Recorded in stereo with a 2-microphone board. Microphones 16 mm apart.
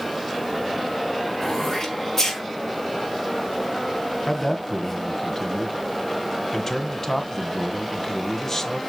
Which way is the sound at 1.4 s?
25° left (ahead or behind).